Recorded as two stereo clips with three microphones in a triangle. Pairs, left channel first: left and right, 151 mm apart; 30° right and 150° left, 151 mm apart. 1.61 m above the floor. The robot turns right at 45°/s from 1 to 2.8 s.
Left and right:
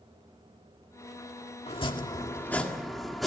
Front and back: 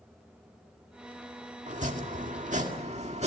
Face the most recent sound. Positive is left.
turn(degrees=180)